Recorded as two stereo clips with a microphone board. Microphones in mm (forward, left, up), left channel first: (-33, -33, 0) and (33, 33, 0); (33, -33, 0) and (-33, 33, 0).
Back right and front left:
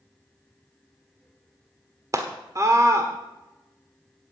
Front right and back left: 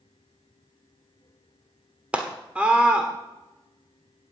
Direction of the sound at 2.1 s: 65° left.